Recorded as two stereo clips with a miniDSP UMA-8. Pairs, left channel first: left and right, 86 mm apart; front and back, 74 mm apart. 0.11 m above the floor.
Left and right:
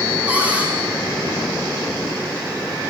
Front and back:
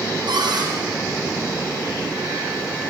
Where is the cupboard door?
165° right, 5.5 m.